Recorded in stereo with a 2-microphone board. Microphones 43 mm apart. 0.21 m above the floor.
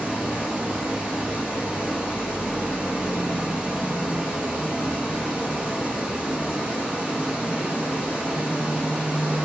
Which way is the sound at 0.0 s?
20° right (ahead or behind).